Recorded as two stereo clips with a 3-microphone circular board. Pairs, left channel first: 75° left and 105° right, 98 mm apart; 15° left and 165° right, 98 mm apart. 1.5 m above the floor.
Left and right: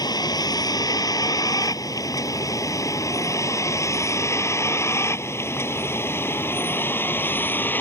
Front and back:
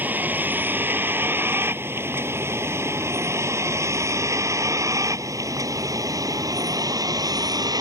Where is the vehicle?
125° left; by 7.8 s 145° left.